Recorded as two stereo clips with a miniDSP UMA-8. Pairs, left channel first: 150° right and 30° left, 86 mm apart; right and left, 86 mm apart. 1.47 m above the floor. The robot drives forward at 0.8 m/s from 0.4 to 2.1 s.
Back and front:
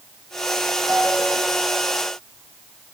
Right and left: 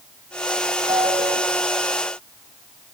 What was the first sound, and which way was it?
A ringtone, 95° left.